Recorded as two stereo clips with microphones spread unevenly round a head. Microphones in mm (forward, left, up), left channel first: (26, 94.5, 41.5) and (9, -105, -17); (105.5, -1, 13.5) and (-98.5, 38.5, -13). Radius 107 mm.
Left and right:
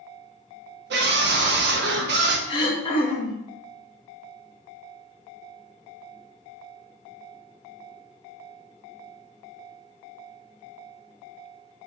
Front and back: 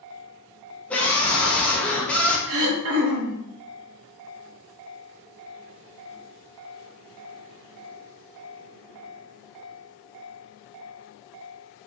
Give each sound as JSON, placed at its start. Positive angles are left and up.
{"t": 0.9, "sound": "a scream", "azimuth_deg": -100, "distance_m": 0.9}
{"t": 2.5, "sound": "throat clearing", "azimuth_deg": 155, "distance_m": 0.9}